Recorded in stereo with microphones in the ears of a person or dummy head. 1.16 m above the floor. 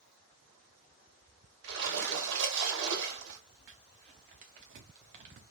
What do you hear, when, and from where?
1.6 s a splash: 70° right (ahead or behind), 1.7 m
3.7 s crumpling: 40° right (ahead or behind), 0.8 m